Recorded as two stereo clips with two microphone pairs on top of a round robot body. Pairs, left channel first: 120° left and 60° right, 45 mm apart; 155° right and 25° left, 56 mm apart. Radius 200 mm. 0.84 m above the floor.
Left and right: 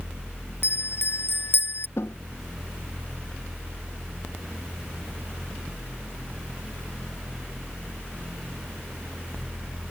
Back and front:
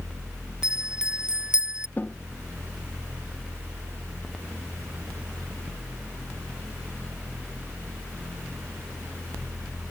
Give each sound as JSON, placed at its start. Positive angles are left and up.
{"t": 0.6, "sound": "a bell", "azimuth_deg": 100}
{"t": 2.0, "sound": "a snare drum", "azimuth_deg": 150}